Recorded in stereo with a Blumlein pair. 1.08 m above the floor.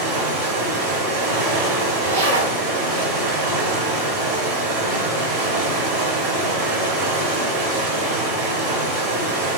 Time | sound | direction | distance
0.0 | running water | 40° right | 2 m
2.0 | a zipper | 60° right | 1.2 m